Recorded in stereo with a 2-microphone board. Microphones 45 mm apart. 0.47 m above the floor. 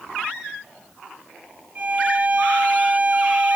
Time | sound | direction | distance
1.8 | a violin | 35° right (ahead or behind) | 0.8 m